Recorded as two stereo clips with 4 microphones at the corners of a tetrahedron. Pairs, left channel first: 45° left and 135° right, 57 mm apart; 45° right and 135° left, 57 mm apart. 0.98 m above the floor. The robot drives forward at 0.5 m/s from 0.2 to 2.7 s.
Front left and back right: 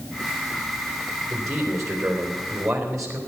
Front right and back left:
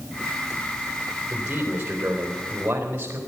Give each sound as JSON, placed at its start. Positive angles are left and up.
{"t": 1.3, "sound": "a man speaking", "azimuth_deg": -160, "distance_m": 3.0}